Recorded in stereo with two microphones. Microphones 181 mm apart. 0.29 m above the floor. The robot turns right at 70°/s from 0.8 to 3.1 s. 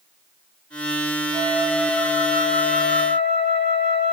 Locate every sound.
1.3 s a flute: 40° right, 5 m; by 4.1 s 85° left, 5 m